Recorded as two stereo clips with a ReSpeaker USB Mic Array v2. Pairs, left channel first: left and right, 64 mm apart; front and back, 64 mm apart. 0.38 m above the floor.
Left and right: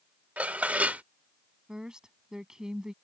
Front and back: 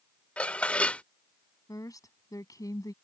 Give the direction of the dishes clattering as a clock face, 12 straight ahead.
2 o'clock.